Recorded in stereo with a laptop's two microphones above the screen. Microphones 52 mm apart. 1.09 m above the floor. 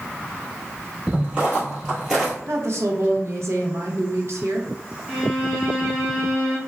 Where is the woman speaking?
60° right (ahead or behind), 0.5 m.